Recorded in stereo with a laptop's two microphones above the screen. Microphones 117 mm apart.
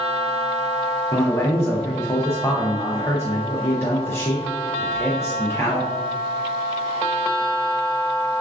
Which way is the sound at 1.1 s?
20° left (ahead or behind).